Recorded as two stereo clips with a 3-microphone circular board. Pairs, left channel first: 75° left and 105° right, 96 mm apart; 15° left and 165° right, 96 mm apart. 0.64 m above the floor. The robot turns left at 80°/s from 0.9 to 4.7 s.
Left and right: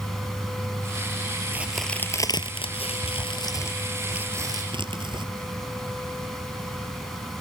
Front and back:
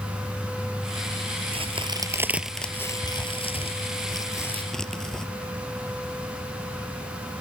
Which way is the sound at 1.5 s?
175° right.